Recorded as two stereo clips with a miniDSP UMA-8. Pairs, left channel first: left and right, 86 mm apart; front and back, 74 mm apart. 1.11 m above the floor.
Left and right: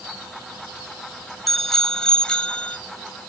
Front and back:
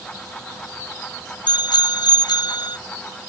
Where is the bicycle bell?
5° left; by 2.8 s 15° left.